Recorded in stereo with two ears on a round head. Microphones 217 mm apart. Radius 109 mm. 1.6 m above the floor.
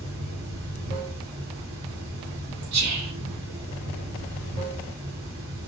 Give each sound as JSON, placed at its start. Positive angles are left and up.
{"t": 0.0, "sound": "running water", "side_deg": -45, "distance_m": 2.0}
{"t": 2.7, "sound": "whispering", "side_deg": -80, "distance_m": 1.7}